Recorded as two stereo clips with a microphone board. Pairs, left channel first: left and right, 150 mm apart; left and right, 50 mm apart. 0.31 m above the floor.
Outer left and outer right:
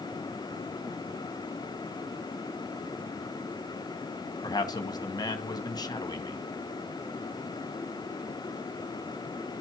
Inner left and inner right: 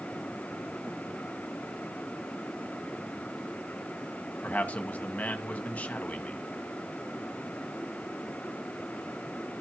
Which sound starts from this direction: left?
A man speaking, at 4.4 s.